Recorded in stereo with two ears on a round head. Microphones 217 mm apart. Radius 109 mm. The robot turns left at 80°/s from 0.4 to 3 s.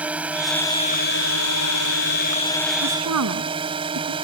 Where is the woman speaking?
55° right (ahead or behind); by 4.1 s 70° right (ahead or behind).